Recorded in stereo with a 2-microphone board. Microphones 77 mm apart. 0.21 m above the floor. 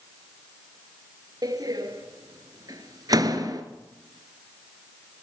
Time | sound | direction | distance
1.4 | a door slam | 60° right (ahead or behind) | 2 m